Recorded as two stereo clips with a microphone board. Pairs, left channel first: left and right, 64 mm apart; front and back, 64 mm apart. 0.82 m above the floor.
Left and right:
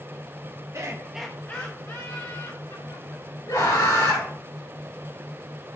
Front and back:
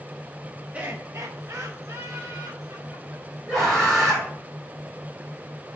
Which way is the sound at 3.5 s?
90° left.